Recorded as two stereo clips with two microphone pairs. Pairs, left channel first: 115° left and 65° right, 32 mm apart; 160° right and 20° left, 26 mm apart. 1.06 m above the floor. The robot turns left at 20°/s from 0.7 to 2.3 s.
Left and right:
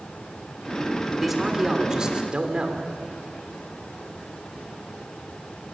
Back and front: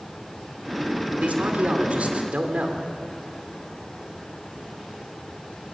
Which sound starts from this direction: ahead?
A man speaking, at 1.2 s.